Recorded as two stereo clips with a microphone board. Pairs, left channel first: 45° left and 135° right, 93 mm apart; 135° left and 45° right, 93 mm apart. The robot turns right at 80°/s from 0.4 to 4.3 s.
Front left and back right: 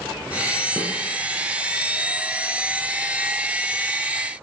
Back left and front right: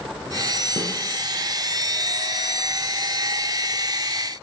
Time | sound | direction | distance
0.8 | a snare drum | 110° left | 0.8 m